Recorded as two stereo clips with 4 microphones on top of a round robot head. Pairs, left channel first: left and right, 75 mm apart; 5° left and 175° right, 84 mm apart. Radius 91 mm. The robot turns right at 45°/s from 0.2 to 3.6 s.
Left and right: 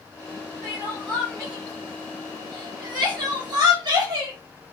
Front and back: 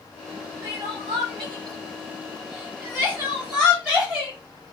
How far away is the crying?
About 0.9 m.